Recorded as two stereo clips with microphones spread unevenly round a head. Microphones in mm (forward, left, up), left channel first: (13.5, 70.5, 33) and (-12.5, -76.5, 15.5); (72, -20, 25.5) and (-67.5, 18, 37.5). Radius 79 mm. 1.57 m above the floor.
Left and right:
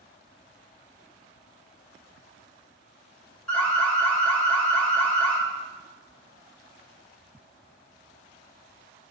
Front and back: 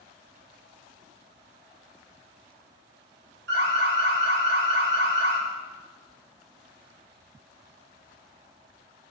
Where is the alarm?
165° left, 2 m.